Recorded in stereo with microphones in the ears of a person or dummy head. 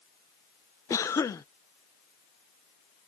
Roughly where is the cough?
Centre.